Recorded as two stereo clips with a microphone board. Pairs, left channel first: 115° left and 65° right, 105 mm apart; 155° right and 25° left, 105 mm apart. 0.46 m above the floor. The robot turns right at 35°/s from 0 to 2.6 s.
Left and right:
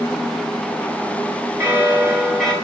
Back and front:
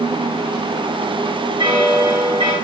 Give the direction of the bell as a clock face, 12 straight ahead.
12 o'clock.